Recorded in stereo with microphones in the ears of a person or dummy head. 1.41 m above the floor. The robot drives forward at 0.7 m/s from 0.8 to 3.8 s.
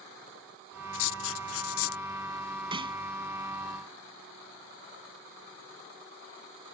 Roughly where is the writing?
Left.